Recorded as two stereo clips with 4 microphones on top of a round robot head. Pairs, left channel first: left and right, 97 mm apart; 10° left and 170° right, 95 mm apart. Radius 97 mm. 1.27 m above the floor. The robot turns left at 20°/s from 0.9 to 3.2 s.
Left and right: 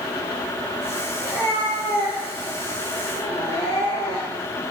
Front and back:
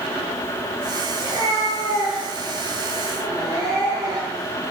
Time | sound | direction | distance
1.2 | a cat meowing | straight behind | 7.5 m